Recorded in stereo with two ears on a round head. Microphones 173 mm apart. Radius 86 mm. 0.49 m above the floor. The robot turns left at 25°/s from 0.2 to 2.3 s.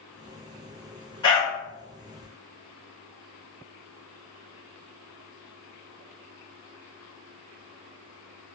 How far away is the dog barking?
About 1.0 m.